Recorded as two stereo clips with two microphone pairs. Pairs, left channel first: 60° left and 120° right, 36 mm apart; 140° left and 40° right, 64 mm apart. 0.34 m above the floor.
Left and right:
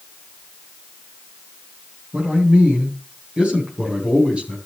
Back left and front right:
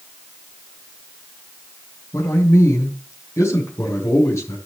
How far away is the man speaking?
About 4 m.